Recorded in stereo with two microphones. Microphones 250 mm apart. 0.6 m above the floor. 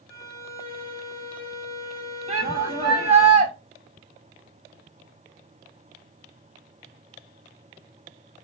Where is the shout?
25° right (ahead or behind), 3.5 m.